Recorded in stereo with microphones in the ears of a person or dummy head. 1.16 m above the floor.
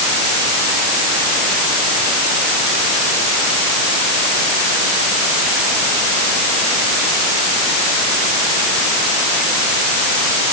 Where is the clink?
I don't hear a clink.